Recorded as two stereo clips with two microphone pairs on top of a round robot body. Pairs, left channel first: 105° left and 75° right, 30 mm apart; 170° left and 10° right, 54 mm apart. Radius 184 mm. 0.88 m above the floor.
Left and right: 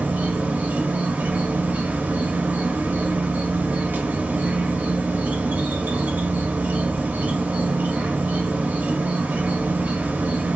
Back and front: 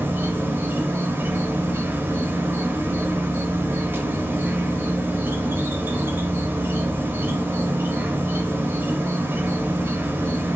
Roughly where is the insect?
Ahead right.